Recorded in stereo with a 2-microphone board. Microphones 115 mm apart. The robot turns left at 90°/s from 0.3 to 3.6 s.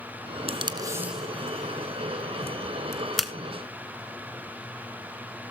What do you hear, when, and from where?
0.5 s tape being pulled: 60° right (ahead or behind), 1.2 m; by 3.3 s 10° right (ahead or behind), 1.2 m